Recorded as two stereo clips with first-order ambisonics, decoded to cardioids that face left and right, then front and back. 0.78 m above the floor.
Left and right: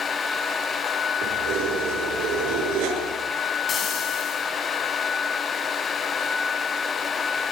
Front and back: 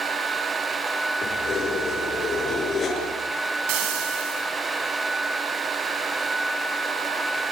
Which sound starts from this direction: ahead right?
Keys jangling, at 1.2 s.